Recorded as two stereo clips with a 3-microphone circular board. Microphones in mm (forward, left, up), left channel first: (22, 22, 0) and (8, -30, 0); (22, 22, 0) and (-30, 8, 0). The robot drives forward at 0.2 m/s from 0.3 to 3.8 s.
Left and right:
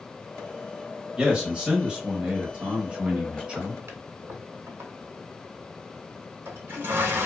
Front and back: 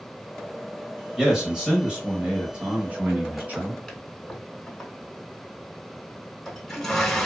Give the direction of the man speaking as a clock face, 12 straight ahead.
4 o'clock.